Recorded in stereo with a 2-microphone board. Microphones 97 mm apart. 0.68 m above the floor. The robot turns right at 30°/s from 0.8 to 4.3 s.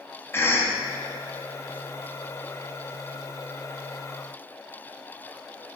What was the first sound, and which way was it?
A cough, 25° left (ahead or behind).